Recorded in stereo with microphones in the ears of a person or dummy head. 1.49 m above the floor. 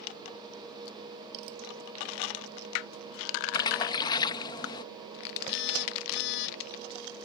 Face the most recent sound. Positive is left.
turn(degrees=70)  # may be behind; listen again after turning